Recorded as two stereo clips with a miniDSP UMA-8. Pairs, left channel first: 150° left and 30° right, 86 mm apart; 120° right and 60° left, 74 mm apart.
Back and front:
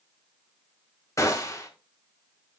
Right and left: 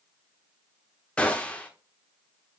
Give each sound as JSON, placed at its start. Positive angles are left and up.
{"t": 1.2, "sound": "a gunshot", "azimuth_deg": 175, "distance_m": 1.2}